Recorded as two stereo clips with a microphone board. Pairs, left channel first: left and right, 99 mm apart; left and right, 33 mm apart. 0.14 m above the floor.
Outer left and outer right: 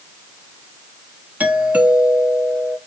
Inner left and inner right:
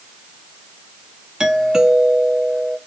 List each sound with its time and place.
1.4 s a doorbell: 15° right (ahead or behind), 1.5 m